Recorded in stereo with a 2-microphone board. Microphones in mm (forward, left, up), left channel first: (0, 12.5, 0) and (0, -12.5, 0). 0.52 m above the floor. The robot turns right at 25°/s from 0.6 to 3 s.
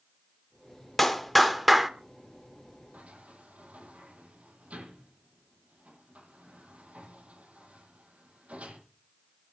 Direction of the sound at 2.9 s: 80° right.